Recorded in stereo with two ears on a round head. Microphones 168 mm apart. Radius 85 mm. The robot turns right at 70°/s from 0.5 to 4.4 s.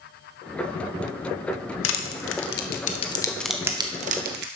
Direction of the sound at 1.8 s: 65° left (ahead or behind).